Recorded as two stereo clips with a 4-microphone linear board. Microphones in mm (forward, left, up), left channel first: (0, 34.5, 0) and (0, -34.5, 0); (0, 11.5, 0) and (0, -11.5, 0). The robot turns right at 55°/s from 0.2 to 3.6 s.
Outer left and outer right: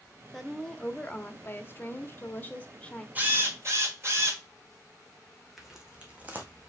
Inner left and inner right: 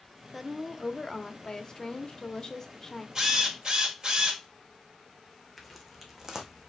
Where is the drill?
25° right (ahead or behind), 1.7 m; by 4.4 s 45° right (ahead or behind), 1.7 m.